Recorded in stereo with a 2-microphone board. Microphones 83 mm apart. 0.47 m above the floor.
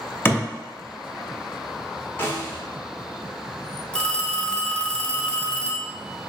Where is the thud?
30° left (ahead or behind), 0.6 m.